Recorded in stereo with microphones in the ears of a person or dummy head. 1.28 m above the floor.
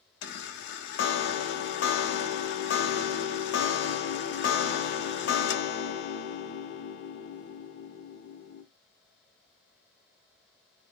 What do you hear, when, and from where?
0.2 s a chime: 55° left (ahead or behind), 0.6 m